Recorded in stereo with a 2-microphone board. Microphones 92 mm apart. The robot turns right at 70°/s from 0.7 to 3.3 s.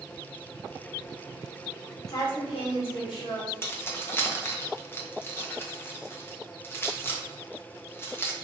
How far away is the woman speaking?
About 1.5 m.